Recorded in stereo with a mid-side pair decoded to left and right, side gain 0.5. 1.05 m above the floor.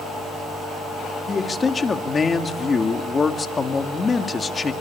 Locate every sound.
1.3 s a man speaking: 30° left, 2.5 m